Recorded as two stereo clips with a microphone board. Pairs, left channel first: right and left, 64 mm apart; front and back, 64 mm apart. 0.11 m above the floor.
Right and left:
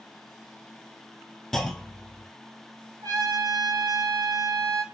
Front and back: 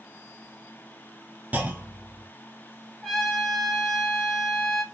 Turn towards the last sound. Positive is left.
turn(degrees=85)